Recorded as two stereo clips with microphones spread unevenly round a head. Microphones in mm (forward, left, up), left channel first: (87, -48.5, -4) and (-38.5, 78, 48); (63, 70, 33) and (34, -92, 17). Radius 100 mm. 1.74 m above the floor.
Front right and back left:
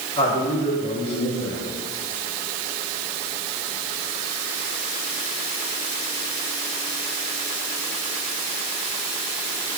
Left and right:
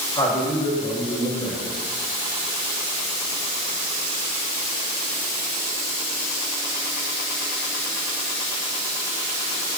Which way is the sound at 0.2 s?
15° left.